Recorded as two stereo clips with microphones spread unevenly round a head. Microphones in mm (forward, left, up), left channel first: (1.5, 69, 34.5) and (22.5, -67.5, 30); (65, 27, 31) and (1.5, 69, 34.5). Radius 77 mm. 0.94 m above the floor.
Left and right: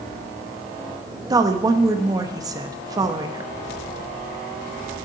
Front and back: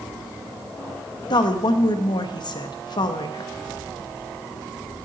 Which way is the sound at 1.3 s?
20° right.